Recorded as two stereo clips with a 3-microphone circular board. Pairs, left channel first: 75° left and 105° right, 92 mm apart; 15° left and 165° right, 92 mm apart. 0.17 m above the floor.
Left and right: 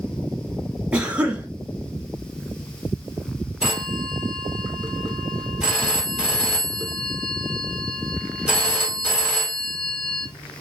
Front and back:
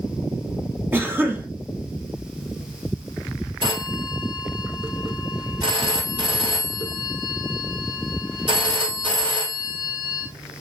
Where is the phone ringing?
175° left, 2 m.